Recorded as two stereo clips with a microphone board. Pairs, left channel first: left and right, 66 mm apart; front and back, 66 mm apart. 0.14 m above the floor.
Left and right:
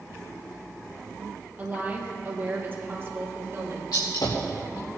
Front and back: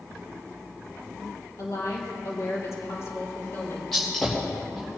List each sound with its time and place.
1.6 s a woman speaking: 25° right, 3 m; by 3.8 s 45° right, 3 m
3.9 s a gunshot: 90° left, 3 m